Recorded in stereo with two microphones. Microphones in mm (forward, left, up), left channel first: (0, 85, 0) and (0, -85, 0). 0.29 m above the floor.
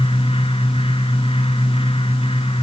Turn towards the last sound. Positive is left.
No sound to turn to.